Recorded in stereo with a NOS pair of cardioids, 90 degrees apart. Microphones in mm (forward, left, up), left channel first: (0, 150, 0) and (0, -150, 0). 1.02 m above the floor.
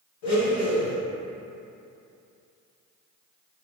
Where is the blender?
70° left, 1.9 m.